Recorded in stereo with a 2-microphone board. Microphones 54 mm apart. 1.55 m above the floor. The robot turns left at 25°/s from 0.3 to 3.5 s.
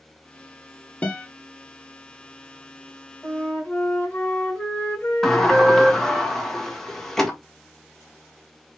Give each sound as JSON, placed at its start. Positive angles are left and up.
{"t": 1.0, "sound": "a guitar", "side_deg": 25, "distance_m": 0.9}
{"t": 3.2, "sound": "a flute", "side_deg": 20, "distance_m": 2.5}
{"t": 5.2, "sound": "a sliding door", "side_deg": 10, "distance_m": 1.1}